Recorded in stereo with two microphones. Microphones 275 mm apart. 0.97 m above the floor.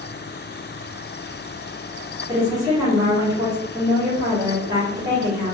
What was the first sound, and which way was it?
A woman speaking, 15° right (ahead or behind).